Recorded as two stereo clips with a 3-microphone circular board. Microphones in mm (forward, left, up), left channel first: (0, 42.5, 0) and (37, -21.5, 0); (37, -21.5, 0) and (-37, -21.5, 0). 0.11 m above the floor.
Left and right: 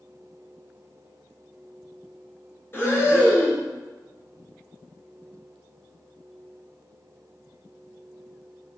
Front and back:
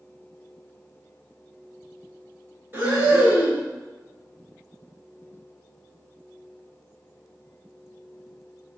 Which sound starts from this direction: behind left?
Breathing, at 2.7 s.